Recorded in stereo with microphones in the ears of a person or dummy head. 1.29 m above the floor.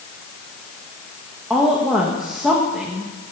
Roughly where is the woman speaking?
Centre.